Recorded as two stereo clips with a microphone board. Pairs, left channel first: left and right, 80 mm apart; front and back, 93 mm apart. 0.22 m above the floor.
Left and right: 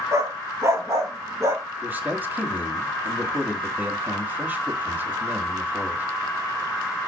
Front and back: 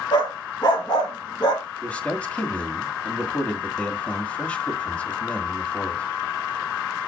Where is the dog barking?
40° right, 2.5 m.